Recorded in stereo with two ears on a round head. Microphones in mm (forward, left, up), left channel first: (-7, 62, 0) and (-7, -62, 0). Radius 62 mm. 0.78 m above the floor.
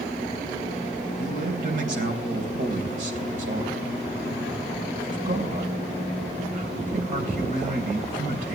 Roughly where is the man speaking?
Right.